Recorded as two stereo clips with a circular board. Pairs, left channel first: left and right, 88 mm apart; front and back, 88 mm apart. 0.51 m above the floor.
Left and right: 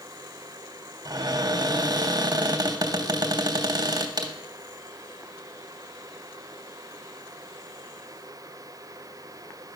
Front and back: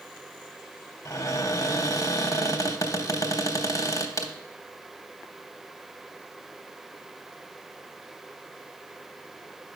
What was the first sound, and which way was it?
A cupboard door, 50° right.